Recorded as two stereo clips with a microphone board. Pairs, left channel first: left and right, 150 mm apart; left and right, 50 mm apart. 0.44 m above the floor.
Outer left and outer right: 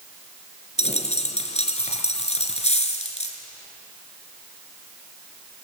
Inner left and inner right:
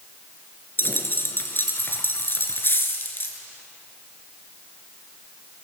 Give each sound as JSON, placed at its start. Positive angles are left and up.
{"t": 0.8, "sound": "a dropped coin", "side_deg": 45, "distance_m": 2.0}